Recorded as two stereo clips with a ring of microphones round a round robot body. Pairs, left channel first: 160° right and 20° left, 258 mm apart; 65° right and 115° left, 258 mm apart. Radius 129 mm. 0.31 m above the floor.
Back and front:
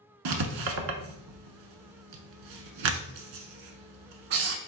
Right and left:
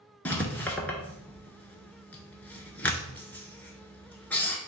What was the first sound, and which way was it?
Writing, 15° left.